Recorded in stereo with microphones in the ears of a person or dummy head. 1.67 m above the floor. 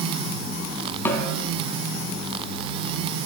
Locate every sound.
1.1 s a snare drum: 15° left (ahead or behind), 3 m